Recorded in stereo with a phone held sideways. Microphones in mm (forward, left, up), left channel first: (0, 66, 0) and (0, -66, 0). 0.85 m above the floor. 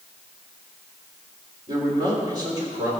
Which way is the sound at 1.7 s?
30° right (ahead or behind).